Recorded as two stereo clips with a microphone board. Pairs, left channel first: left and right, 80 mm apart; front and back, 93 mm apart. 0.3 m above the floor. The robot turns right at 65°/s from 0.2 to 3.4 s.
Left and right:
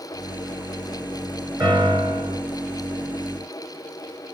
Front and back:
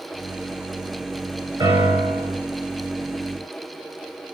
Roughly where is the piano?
Behind right.